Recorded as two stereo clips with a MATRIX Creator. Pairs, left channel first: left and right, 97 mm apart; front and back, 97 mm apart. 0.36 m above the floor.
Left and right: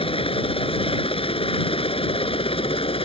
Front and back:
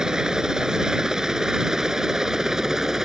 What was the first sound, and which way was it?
A helicopter, 100° left.